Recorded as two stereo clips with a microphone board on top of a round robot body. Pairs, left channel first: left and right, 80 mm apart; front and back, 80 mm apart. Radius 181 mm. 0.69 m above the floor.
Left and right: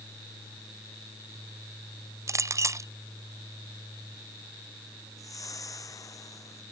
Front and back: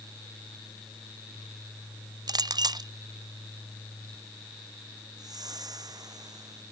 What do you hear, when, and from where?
2.3 s a clink: 145° right
5.2 s a whoosh: 140° left